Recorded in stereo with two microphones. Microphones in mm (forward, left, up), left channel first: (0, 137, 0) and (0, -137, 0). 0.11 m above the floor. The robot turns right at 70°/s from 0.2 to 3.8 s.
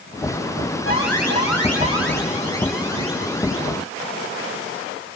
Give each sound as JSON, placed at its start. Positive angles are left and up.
{"t": 0.8, "sound": "an alarm", "azimuth_deg": 50, "distance_m": 6.5}